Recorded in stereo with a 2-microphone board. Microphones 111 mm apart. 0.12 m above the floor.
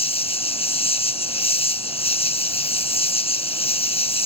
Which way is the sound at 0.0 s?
65° left (ahead or behind).